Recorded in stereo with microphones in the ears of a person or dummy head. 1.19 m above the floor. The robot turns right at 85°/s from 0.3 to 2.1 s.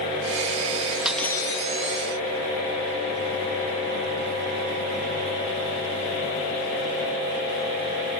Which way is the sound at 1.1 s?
5° right.